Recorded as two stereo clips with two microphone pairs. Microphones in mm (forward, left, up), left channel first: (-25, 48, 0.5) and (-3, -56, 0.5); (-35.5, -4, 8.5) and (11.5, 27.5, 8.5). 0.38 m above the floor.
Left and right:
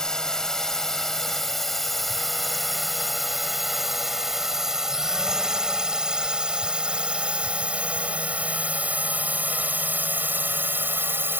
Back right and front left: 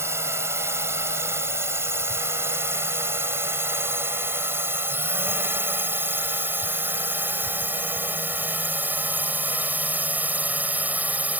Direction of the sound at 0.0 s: 20° left.